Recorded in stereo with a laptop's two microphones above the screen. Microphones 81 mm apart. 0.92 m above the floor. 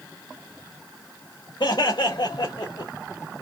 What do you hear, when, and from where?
1.6 s laughter: 60° left (ahead or behind), 1.7 m